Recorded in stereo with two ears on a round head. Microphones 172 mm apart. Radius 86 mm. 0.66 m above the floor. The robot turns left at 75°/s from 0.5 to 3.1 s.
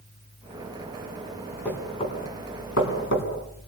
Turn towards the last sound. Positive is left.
turn(degrees=65)  # may be behind; listen again after turning